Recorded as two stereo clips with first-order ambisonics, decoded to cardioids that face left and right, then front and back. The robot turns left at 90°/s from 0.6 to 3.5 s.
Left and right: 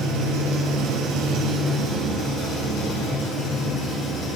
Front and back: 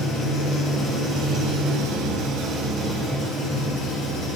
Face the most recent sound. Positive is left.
turn(degrees=40)